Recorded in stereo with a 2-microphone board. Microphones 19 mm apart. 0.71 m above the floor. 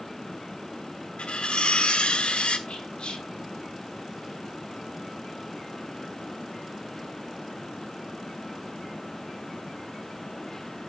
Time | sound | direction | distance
1.2 | cutlery clinking | 75° left (ahead or behind) | 1.2 m
2.7 | whispering | 65° left (ahead or behind) | 2.0 m